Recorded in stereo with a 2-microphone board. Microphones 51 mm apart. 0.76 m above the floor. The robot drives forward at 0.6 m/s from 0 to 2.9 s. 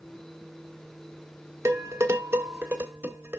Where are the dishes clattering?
70° right (ahead or behind), 1.2 m; by 3.4 s 45° right (ahead or behind), 1.6 m.